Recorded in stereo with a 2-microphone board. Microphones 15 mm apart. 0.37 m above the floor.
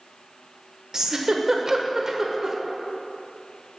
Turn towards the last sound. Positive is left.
turn(degrees=-25)  # may be behind; listen again after turning